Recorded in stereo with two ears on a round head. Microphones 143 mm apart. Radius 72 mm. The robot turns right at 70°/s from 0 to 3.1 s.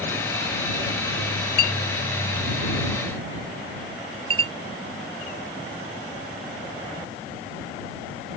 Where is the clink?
70° left (ahead or behind); by 4.5 s 35° right (ahead or behind).